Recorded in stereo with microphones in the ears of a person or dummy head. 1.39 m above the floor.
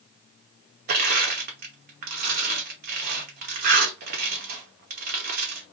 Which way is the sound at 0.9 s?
45° right (ahead or behind).